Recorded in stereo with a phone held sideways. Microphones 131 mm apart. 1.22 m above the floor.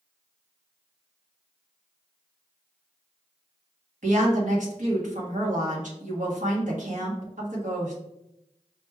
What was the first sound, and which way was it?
A woman speaking, 75° right (ahead or behind).